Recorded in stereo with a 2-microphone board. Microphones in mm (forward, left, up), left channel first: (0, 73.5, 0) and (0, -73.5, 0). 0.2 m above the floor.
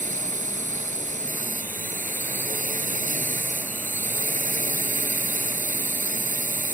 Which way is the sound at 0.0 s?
60° right (ahead or behind).